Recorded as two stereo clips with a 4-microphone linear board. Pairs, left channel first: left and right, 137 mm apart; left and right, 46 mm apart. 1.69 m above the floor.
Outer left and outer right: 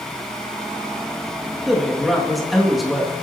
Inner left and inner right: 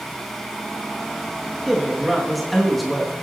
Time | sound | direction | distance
1.7 | a man speaking | centre (ahead or behind) | 3 m